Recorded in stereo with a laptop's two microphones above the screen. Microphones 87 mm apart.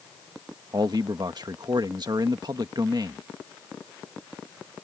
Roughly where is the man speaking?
Right.